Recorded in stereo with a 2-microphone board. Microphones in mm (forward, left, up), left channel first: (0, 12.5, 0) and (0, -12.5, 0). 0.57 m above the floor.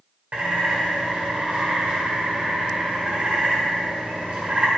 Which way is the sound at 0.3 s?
60° right (ahead or behind).